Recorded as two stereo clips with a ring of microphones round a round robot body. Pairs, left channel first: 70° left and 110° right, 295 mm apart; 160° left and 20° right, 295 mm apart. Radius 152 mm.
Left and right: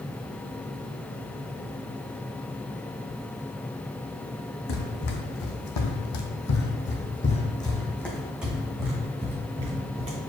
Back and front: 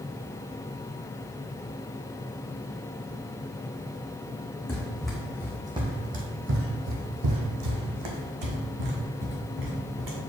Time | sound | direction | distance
4.7 | running footsteps | 75° left | 1.8 m